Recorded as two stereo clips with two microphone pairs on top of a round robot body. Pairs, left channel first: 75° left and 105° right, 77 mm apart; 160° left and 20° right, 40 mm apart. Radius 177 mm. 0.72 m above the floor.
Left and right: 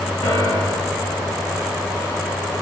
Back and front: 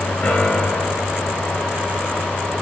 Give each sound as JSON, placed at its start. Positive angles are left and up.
{"t": 0.2, "sound": "a piano", "azimuth_deg": 105, "distance_m": 2.5}